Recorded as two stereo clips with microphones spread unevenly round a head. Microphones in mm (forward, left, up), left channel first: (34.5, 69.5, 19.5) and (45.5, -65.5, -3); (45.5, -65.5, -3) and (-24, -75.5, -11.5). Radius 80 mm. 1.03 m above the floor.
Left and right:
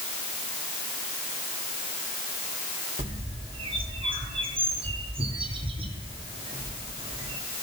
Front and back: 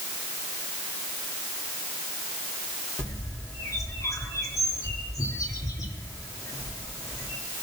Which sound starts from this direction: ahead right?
A bird, at 3.0 s.